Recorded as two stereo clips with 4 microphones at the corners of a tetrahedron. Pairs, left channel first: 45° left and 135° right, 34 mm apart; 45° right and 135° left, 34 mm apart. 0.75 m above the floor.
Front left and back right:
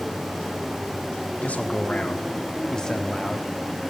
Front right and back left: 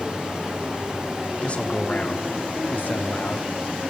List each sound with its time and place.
1.4 s a man speaking: 5° left, 1.6 m; by 3.5 s 40° right, 1.3 m